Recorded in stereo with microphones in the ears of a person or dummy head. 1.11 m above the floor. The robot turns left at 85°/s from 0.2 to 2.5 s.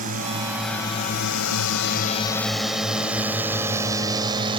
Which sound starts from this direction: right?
A drone, at 0.0 s.